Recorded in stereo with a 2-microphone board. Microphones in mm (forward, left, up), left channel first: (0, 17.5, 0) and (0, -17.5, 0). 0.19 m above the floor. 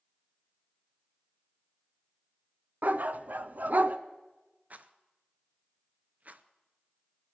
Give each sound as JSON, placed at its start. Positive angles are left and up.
{"t": 2.8, "sound": "a dog barking", "side_deg": -55, "distance_m": 0.5}
{"t": 4.7, "sound": "a rattle", "side_deg": -50, "distance_m": 0.6}